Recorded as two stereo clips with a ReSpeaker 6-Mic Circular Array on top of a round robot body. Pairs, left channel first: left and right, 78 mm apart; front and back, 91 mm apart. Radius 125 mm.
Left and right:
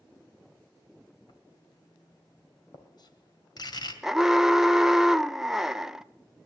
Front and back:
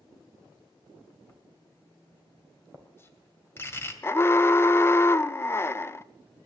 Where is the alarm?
15° right, 0.8 m.